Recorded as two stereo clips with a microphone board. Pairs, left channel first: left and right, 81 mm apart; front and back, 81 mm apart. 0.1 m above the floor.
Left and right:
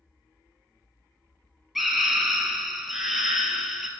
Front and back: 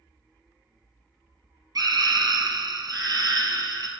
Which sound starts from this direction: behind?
A scream, at 1.8 s.